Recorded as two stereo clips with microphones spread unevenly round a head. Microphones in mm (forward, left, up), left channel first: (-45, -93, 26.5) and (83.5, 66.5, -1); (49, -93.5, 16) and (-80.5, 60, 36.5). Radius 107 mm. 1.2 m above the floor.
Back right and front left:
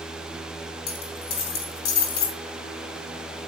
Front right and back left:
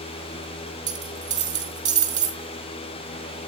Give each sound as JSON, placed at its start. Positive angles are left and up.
{"t": 0.9, "sound": "a dropped coin", "azimuth_deg": -175, "distance_m": 5.0}